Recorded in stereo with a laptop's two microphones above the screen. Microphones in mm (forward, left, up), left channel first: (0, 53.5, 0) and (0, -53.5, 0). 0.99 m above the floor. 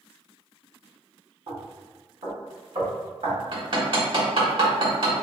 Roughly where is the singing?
No singing in this recording.